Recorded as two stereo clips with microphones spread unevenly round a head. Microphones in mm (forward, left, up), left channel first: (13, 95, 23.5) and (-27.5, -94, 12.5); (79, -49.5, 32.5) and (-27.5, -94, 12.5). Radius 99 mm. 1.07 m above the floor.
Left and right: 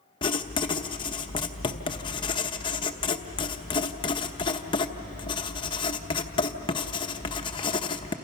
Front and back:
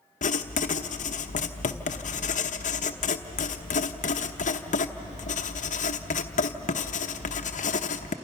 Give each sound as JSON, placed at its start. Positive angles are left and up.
{"t": 0.2, "sound": "writing", "azimuth_deg": 10, "distance_m": 0.9}